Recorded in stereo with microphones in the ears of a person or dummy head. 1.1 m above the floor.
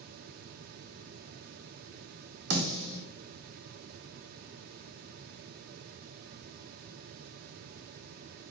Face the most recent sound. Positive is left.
turn(degrees=-60)  # may be behind; listen again after turning